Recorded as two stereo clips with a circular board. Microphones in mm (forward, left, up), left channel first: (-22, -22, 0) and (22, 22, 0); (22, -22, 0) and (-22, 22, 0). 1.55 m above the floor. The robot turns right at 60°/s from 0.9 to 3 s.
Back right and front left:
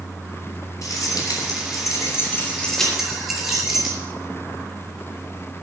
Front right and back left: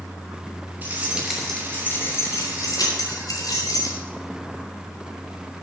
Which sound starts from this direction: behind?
Keys jangling, at 0.8 s.